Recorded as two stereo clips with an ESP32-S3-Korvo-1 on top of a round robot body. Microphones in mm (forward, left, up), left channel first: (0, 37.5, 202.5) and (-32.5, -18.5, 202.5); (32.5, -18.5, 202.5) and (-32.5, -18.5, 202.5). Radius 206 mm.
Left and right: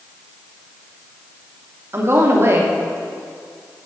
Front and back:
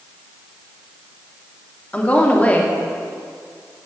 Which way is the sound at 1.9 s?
70° right.